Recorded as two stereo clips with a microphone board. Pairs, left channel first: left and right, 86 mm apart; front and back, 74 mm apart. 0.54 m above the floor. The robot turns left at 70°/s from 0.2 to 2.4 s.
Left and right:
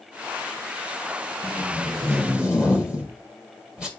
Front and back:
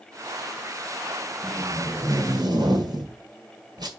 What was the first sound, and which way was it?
Tape being pulled, 100° right.